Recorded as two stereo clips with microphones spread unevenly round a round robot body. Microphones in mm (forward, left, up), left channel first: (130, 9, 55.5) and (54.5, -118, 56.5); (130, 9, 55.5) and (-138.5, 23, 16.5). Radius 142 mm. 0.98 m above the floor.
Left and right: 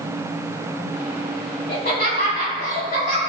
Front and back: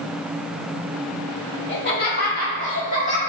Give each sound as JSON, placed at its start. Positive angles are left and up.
{"t": 1.7, "sound": "laughter", "azimuth_deg": 50, "distance_m": 1.8}